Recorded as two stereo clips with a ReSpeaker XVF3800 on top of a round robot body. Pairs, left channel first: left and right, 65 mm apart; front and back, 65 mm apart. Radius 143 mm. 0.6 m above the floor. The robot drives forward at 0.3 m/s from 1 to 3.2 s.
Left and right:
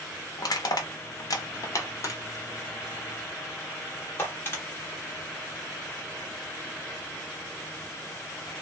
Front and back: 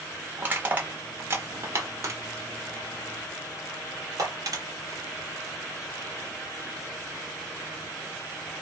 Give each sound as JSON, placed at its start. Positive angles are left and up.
{"t": 0.4, "sound": "crushing", "azimuth_deg": 115, "distance_m": 0.7}